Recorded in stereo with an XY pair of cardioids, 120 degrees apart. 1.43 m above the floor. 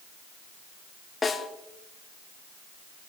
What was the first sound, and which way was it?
A snare drum, 25° left.